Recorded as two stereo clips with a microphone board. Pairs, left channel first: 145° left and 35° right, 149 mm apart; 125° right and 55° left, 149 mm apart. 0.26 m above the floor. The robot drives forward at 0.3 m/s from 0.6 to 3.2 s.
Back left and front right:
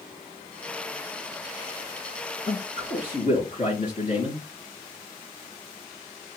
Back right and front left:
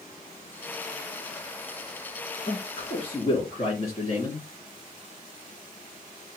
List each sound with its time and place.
2.5 s a man speaking: 175° right, 3.5 m